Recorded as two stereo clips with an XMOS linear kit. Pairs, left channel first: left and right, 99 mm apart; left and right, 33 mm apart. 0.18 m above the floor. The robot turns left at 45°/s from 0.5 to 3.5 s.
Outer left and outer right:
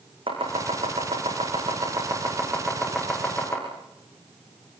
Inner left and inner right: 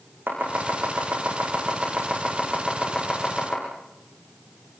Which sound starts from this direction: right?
Chopping, at 0.3 s.